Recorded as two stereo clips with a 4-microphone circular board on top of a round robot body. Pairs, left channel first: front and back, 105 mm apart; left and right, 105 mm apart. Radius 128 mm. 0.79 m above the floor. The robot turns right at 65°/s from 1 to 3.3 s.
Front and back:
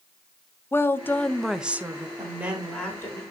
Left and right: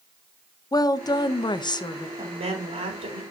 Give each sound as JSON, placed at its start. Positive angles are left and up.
{"t": 0.7, "sound": "a woman speaking", "azimuth_deg": 60, "distance_m": 0.8}
{"t": 2.2, "sound": "a woman speaking", "azimuth_deg": -125, "distance_m": 3.5}